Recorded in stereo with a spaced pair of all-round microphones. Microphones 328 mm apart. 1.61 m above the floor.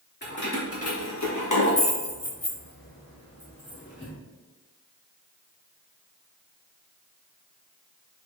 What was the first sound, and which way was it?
Keys jangling, 30° left (ahead or behind).